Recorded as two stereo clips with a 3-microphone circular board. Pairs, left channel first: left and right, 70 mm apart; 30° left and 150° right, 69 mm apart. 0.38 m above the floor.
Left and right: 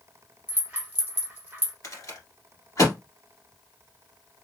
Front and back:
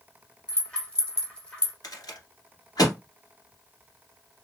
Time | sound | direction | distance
0.5 | a rattle | 40° right | 1.4 m
1.8 | a rattle | 55° left | 1.7 m